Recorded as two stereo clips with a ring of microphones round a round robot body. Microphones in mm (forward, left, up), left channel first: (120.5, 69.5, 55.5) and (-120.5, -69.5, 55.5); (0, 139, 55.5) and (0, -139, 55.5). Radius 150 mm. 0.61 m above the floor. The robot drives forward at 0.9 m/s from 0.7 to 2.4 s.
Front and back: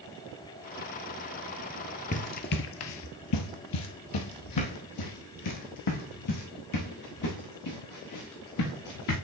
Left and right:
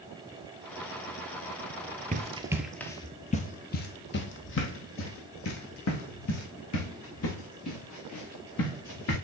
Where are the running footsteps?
30° right, 0.9 m; by 9.2 s 55° left, 5 m.